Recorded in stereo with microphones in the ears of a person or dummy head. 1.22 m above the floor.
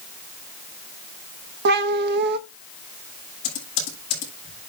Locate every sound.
1.6 s a cat meowing: 65° right (ahead or behind), 0.8 m
3.4 s typing on a keyboard: 85° left, 7.5 m